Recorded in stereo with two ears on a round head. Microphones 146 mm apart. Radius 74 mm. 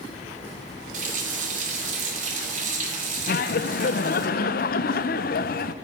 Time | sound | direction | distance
0.9 | a running tap | 50° right (ahead or behind) | 2.5 m
3.3 | laughter | 55° left (ahead or behind) | 0.7 m